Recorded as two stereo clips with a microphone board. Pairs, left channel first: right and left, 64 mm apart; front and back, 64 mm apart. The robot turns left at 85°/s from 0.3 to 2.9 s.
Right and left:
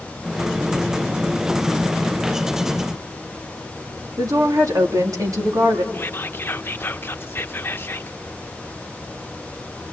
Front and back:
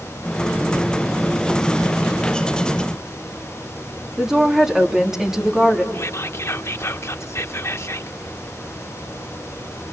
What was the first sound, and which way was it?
A woman speaking, 100° left.